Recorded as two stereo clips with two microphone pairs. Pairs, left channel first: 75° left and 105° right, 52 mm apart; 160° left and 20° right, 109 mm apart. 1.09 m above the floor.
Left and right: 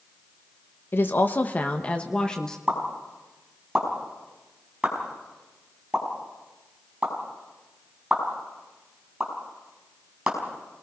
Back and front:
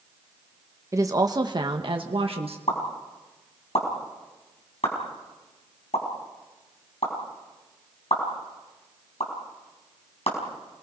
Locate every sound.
0.9 s a woman speaking: 40° left, 1.3 m; by 2.6 s straight ahead, 1.5 m
2.7 s a pop: 175° right, 5 m